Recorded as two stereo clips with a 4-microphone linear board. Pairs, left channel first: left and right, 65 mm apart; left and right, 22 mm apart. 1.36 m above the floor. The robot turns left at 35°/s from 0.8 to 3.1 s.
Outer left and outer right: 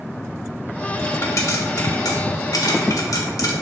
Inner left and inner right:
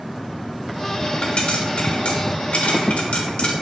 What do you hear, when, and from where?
1.2 s a pop: 45° left (ahead or behind), 1.3 m; by 3.5 s 60° left (ahead or behind), 1.3 m